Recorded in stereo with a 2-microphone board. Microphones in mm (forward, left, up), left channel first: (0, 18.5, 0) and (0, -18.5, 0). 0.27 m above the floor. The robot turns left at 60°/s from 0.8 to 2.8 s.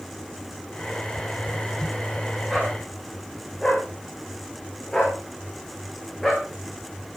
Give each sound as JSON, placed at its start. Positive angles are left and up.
{"t": 2.5, "sound": "a dog barking", "side_deg": -5, "distance_m": 5.5}